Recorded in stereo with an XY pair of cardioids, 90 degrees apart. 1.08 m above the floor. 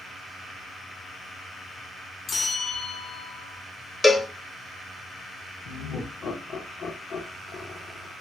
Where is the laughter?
60° left, 1.1 m.